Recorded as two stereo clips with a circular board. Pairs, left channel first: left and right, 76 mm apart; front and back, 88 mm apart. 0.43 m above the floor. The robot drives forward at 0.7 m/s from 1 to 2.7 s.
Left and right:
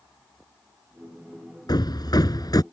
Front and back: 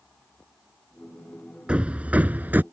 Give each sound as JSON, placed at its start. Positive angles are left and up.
{"t": 1.7, "sound": "hammering", "azimuth_deg": 105}